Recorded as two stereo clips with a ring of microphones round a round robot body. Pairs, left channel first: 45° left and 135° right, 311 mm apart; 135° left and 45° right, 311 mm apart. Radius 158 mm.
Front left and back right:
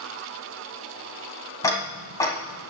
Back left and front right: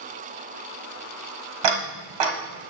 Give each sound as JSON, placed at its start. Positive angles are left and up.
{"t": 1.6, "sound": "ticking", "azimuth_deg": -35, "distance_m": 1.8}